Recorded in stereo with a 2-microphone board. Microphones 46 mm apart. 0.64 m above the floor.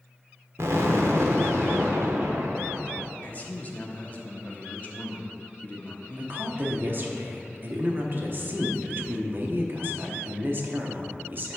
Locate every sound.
0.6 s an explosion: 75° right (ahead or behind), 0.9 m
3.2 s a man speaking: 35° left (ahead or behind), 0.9 m
6.2 s a woman speaking: 45° right (ahead or behind), 1.0 m